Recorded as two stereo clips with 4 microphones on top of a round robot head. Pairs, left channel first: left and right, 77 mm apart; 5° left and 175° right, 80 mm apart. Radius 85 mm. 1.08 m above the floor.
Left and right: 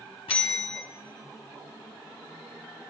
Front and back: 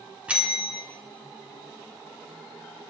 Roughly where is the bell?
Behind left.